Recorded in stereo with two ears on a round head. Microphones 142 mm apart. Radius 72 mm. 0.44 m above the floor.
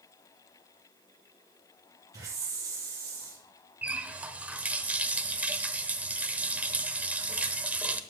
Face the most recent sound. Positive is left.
turn(degrees=-10)  # may be behind; listen again after turning